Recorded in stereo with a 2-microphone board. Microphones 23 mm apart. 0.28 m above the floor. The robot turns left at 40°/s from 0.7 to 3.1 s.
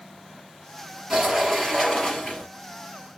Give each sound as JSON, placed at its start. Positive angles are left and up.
{"t": 1.1, "sound": "a sliding door", "azimuth_deg": -160, "distance_m": 2.5}